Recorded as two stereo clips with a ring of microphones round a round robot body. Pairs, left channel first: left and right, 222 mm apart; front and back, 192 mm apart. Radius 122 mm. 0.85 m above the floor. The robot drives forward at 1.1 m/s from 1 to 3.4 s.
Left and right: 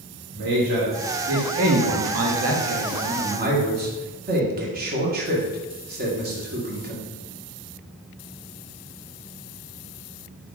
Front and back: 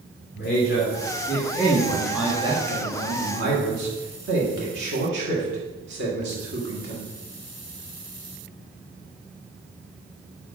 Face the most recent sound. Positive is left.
turn(degrees=-140)